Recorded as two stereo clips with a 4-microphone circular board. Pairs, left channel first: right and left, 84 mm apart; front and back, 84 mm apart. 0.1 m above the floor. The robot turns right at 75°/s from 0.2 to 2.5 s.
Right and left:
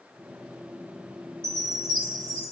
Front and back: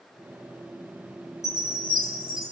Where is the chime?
30° left, 2 m; by 2.5 s 110° left, 2 m.